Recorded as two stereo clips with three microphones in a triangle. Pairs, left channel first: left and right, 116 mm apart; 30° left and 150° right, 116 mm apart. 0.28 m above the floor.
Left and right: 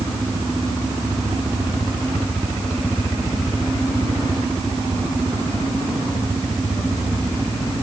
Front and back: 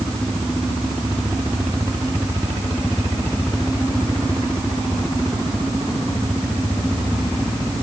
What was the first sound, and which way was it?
Only background noise.